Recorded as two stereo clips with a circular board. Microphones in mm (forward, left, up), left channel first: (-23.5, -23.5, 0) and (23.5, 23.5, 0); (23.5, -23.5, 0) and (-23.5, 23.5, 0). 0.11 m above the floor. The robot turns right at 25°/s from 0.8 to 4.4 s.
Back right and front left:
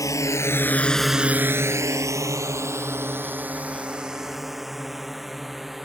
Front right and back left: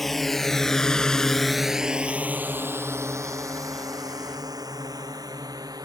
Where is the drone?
130° right; by 5.8 s 130° left.